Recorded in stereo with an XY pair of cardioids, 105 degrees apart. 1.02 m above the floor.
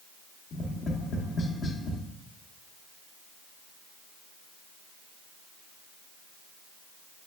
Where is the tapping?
50° left, 0.6 m.